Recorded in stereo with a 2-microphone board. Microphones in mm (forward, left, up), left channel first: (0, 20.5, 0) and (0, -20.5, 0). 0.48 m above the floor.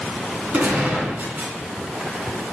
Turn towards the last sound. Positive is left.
turn(degrees=-40)  # may be behind; listen again after turning